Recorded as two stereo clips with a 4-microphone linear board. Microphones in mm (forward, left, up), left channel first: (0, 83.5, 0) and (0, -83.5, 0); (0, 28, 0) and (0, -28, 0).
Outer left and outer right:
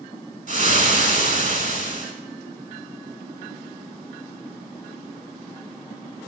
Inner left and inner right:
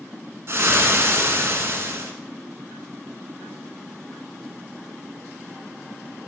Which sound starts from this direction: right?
Frying, at 0.5 s.